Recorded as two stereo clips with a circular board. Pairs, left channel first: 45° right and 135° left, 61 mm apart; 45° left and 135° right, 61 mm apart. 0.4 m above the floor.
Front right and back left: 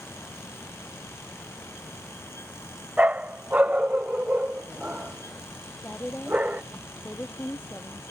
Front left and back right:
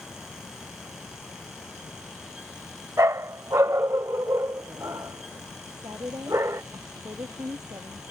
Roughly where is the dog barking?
Behind.